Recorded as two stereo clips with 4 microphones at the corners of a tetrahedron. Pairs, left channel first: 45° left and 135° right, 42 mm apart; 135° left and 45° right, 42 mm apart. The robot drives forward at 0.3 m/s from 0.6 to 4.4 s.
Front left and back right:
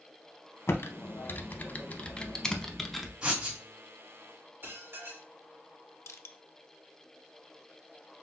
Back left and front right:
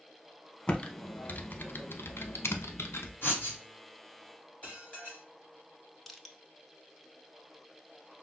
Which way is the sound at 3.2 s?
160° left.